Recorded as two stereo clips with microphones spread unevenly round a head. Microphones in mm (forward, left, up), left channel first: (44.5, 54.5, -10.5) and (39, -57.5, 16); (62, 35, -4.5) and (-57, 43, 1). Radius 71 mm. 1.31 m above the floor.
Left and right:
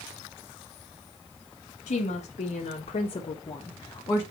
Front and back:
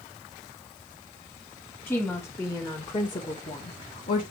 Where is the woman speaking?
70° left, 1.8 m; by 4.2 s 20° left, 1.5 m.